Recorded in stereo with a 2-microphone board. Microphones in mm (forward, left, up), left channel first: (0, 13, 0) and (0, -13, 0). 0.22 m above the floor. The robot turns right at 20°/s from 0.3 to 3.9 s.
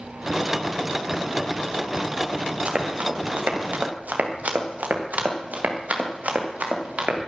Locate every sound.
2.6 s running footsteps: 50° right (ahead or behind), 3.5 m; by 7.2 s 65° right (ahead or behind), 5.5 m